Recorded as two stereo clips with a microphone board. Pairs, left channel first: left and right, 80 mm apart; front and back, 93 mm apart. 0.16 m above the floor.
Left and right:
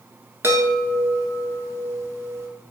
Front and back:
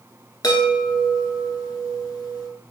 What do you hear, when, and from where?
0.4 s a chime: 40° right, 0.8 m